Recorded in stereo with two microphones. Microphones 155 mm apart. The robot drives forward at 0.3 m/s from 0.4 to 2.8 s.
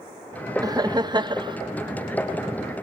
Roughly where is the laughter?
Right.